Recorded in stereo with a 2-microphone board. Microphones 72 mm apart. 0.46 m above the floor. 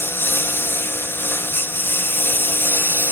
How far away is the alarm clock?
I don't hear an alarm clock.